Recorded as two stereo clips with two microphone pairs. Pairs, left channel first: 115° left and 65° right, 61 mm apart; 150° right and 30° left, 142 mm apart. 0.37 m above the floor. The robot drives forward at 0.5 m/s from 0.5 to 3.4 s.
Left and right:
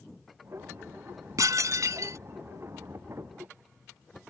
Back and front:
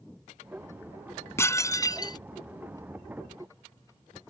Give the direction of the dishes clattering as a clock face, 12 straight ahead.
3 o'clock.